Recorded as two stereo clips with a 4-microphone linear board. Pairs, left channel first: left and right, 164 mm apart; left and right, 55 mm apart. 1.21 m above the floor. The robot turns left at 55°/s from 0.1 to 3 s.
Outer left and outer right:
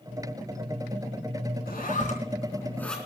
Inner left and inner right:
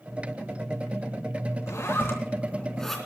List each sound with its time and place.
1.7 s a zipper: 70° left (ahead or behind), 3.5 m; by 3.0 s 5° left (ahead or behind), 3.5 m